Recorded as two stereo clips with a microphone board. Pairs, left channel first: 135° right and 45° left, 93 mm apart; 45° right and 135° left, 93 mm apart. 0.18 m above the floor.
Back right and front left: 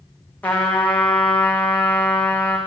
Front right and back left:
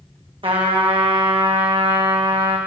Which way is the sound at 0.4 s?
155° left.